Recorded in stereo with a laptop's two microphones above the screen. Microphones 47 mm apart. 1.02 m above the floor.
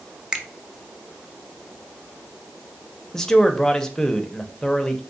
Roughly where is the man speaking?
Centre.